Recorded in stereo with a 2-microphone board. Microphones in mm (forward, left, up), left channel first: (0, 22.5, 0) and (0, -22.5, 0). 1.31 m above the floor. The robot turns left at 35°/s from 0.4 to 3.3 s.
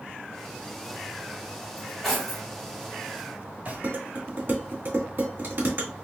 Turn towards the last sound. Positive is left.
turn(degrees=-50)  # may be behind; listen again after turning